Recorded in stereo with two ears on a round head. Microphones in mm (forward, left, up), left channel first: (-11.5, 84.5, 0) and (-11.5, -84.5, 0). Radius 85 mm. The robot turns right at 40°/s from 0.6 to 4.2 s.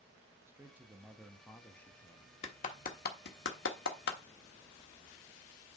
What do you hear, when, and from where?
0.5 s a man speaking: 15° right (ahead or behind), 0.8 m; by 2.3 s 20° left (ahead or behind), 0.8 m
2.4 s a clap: 30° left (ahead or behind), 1.3 m; by 4.2 s 65° left (ahead or behind), 1.3 m